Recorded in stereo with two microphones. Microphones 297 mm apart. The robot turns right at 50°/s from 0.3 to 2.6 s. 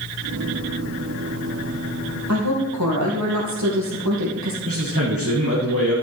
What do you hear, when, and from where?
2.3 s a woman speaking: 65° right (ahead or behind), 4 m; by 4.5 s 75° right (ahead or behind), 4 m
4.7 s a man speaking: 50° right (ahead or behind), 4 m